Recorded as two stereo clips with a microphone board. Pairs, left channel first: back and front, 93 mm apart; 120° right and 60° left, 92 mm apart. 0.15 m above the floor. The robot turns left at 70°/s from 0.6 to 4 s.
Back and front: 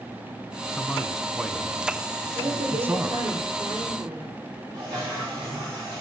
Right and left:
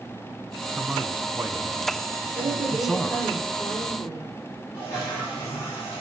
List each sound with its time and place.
0.8 s a man speaking: 125° left, 1.2 m; by 3.4 s 55° right, 1.2 m
2.4 s a woman speaking: 45° left, 5 m; by 4.3 s 70° right, 5 m
4.7 s a toilet flushing: 55° right, 7.5 m